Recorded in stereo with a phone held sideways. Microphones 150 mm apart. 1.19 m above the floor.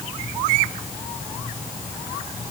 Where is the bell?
No bell in this recording.